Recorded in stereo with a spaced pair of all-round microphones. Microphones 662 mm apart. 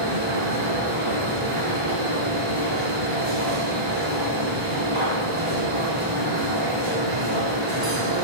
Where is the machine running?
40° right (ahead or behind), 1.8 m.